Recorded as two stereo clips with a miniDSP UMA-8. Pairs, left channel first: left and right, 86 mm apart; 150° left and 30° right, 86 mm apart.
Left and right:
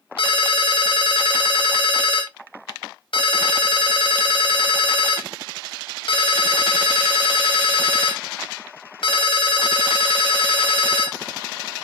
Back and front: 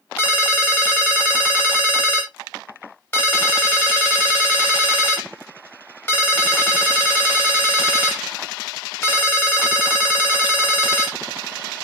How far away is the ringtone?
About 0.8 m.